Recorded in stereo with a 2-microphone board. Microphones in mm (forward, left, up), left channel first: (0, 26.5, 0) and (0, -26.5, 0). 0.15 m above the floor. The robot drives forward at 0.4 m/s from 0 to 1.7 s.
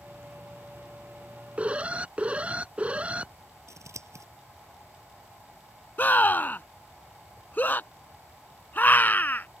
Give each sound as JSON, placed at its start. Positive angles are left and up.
{"t": 1.6, "sound": "an alarm", "side_deg": -25}
{"t": 3.7, "sound": "scissors", "side_deg": -65}
{"t": 6.0, "sound": "a scream", "side_deg": 35}